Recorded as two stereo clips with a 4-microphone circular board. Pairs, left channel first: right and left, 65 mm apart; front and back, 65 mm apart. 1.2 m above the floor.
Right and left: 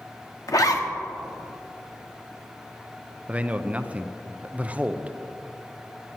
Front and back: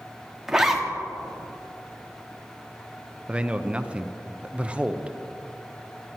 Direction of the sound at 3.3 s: 130° left.